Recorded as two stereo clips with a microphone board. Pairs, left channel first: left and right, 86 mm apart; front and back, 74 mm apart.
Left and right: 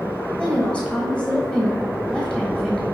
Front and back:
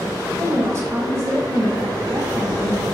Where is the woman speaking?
165° left, 1.5 m.